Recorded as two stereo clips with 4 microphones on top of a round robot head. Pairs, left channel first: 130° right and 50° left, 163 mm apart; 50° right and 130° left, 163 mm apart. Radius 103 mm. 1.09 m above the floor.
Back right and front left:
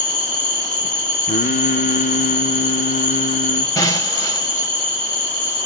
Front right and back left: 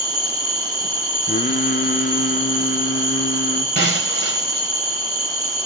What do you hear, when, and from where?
0.0 s an insect: 160° right, 0.9 m
1.3 s singing: 90° right, 0.6 m
3.8 s breaking glass: 155° left, 2.5 m